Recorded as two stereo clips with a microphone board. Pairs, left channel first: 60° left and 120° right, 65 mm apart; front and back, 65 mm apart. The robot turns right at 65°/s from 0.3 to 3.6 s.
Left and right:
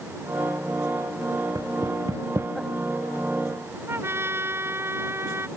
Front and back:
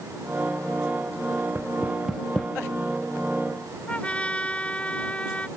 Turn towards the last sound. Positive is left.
turn(degrees=-70)